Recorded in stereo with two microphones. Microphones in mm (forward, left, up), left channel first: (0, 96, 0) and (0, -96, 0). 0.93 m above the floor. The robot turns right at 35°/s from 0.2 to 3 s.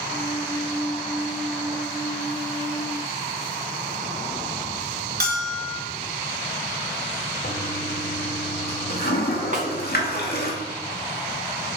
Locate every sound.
5.2 s a bell: 55° right (ahead or behind), 3.5 m
7.4 s a toilet flushing: 55° left (ahead or behind), 1.9 m
9.5 s a snare drum: 45° right (ahead or behind), 1.8 m